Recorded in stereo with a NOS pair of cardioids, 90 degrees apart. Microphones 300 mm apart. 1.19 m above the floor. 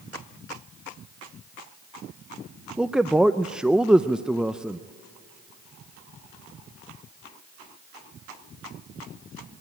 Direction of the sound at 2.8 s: 5° right.